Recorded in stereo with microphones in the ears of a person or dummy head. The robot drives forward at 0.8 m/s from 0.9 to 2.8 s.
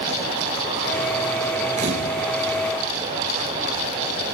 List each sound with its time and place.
1.8 s a camera shutter: 35° right (ahead or behind), 5 m